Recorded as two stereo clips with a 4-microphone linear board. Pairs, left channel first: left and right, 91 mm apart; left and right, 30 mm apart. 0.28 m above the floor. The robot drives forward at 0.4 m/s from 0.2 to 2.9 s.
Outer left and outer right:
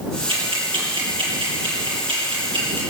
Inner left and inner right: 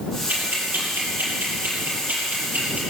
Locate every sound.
0.3 s ticking: 75° right (ahead or behind), 5.5 m; by 2.8 s 65° right (ahead or behind), 6 m